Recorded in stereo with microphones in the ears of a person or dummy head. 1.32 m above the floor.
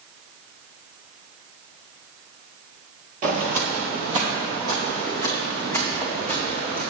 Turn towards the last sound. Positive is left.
turn(degrees=-35)  # may be behind; listen again after turning